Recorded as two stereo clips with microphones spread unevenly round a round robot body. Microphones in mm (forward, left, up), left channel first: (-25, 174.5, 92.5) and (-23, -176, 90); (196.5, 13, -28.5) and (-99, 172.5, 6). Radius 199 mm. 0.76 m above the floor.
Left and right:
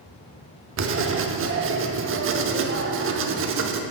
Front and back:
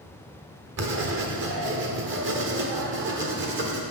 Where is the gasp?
I don't hear a gasp.